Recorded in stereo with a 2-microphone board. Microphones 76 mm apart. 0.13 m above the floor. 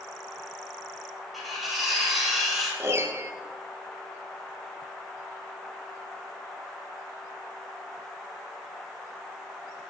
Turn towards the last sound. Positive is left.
turn(degrees=-40)  # may be behind; listen again after turning